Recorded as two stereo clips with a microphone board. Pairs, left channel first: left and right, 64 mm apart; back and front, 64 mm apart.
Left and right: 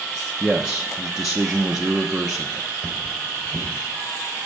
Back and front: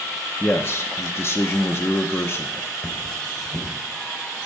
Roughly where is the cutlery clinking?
Behind left.